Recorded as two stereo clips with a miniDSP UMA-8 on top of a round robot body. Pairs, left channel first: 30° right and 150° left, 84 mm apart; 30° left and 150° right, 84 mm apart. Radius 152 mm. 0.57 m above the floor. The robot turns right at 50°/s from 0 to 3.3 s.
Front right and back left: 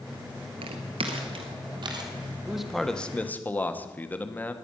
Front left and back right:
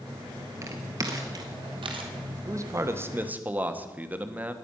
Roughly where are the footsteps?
Behind left.